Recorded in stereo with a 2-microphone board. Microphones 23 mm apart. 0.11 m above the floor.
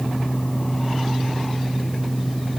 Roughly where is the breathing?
I don't hear breathing.